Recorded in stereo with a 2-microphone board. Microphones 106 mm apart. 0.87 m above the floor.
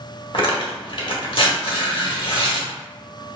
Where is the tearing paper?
55° left (ahead or behind), 1.0 m.